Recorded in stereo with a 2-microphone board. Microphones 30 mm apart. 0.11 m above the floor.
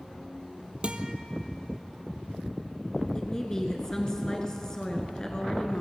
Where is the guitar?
40° right (ahead or behind), 0.8 m.